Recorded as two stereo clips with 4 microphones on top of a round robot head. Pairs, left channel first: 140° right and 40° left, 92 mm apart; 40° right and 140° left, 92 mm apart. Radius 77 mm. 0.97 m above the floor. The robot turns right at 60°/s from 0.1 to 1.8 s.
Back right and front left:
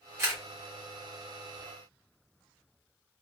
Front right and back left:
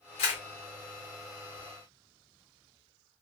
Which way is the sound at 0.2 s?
25° right.